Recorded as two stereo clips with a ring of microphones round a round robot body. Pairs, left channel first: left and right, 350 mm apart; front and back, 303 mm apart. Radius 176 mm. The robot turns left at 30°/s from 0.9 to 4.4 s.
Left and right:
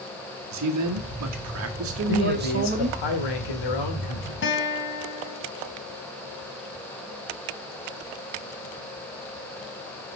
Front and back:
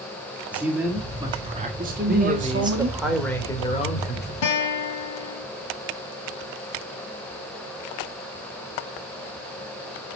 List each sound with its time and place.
0.5 s a man speaking: 95° right, 1.6 m; by 3.0 s 160° right, 1.6 m
2.1 s a man speaking: 120° left, 2 m; by 4.3 s 55° left, 2 m
4.4 s a guitar: 30° left, 1.6 m